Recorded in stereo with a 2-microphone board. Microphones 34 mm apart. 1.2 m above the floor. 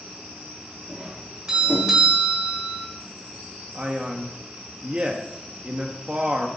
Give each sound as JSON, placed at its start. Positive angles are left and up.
{"t": 0.9, "sound": "a doorbell", "side_deg": -20, "distance_m": 4.0}
{"t": 3.8, "sound": "a man speaking", "side_deg": -30, "distance_m": 1.4}